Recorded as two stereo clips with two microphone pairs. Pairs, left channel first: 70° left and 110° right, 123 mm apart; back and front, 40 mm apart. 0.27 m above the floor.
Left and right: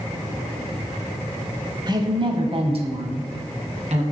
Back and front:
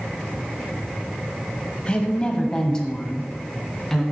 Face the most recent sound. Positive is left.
turn(degrees=-100)